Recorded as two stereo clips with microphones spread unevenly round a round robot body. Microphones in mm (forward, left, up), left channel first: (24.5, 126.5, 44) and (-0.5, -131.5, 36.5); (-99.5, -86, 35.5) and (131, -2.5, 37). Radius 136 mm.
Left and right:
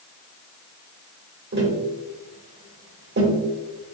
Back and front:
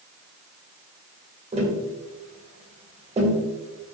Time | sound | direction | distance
1.5 | tapping | 45° right | 1.7 m